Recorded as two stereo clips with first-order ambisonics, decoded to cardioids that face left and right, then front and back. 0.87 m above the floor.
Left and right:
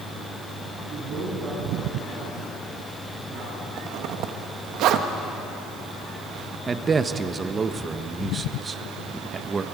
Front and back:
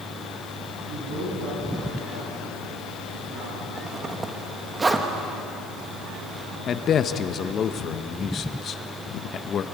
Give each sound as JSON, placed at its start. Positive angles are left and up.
{"t": 0.9, "sound": "a man speaking", "azimuth_deg": -145, "distance_m": 8.5}
{"t": 3.8, "sound": "a zipper", "azimuth_deg": -105, "distance_m": 1.2}
{"t": 6.7, "sound": "a man speaking", "azimuth_deg": -30, "distance_m": 0.7}